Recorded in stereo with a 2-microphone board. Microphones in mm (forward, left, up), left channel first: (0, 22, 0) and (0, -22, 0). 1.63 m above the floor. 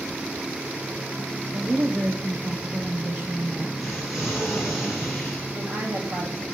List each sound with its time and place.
1.5 s a woman speaking: 45° right (ahead or behind), 1.3 m
3.8 s an explosion: centre (ahead or behind), 5.5 m
5.5 s a woman speaking: 75° right (ahead or behind), 3 m